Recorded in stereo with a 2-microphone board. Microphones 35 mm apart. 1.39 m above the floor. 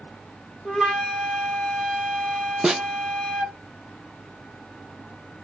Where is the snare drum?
15° right (ahead or behind), 0.9 m.